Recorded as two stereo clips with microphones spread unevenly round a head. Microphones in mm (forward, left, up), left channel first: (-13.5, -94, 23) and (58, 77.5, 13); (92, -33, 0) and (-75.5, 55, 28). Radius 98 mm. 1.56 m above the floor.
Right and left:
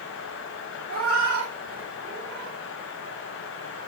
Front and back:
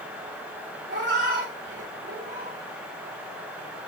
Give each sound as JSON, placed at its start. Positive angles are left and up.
{"t": 0.9, "sound": "a cat meowing", "azimuth_deg": 110, "distance_m": 2.5}